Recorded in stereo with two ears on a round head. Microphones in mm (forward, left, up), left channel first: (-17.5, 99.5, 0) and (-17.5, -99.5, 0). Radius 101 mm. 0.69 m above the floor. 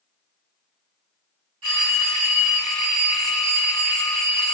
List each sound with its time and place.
1.6 s a phone ringing: 75° right (ahead or behind), 1.8 m